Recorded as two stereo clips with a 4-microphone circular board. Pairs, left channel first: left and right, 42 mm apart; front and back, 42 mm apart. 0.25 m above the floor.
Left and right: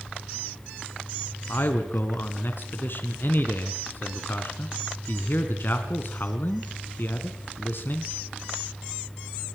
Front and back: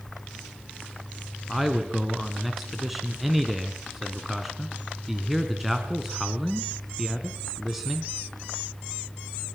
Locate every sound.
1.5 s a man speaking: 95° left, 2.5 m